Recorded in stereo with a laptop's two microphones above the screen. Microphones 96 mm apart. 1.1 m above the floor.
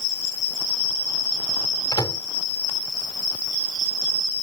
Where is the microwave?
45° left (ahead or behind).